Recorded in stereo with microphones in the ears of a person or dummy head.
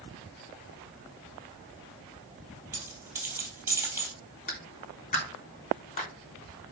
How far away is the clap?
About 3 m.